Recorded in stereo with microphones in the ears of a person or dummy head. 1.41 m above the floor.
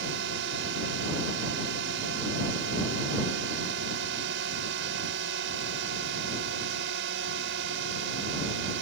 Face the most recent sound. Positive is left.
turn(degrees=-75)  # may be behind; listen again after turning